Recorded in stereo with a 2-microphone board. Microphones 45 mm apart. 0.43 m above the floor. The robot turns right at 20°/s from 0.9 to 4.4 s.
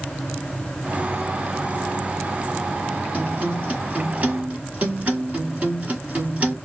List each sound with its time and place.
3.1 s a guitar: 30° right (ahead or behind), 1.6 m